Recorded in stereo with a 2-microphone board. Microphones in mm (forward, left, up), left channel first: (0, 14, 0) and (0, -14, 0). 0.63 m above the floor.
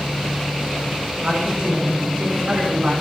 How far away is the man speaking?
About 6.5 m.